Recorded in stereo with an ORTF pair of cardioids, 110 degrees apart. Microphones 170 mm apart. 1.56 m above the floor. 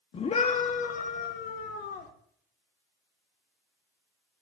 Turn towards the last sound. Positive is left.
turn(degrees=70)